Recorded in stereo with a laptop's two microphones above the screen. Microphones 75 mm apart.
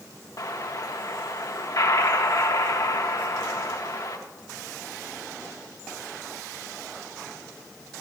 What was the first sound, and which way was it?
An explosion, 55° left (ahead or behind).